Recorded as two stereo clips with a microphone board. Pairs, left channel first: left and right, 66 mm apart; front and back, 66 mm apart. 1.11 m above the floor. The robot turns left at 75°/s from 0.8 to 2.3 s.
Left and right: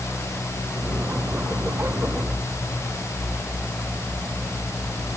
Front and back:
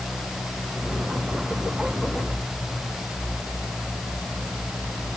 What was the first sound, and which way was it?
Only background noise.